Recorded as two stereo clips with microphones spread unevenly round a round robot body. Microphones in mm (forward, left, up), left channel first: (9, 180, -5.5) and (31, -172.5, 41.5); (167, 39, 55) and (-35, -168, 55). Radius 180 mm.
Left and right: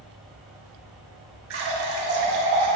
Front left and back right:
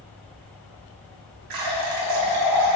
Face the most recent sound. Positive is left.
turn(degrees=-145)